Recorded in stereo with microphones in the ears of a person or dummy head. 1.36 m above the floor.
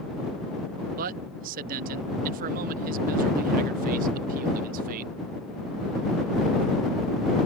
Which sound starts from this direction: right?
A man speaking, at 1.0 s.